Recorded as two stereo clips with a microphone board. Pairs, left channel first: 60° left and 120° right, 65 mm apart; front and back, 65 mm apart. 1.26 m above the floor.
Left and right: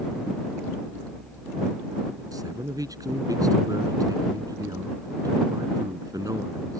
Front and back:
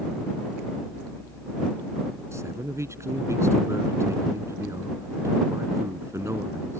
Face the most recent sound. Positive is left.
turn(degrees=-140)